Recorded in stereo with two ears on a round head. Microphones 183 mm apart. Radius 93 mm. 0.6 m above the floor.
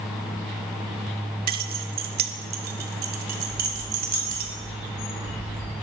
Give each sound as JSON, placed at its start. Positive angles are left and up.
{"t": 1.5, "sound": "keys jangling", "side_deg": -50, "distance_m": 0.8}
{"t": 3.5, "sound": "a bird", "side_deg": 30, "distance_m": 3.5}